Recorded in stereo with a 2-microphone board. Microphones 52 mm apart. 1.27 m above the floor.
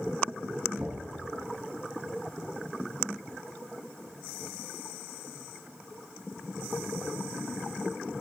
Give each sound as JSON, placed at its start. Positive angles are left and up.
{"t": 0.8, "sound": "knocking", "side_deg": -50, "distance_m": 6.0}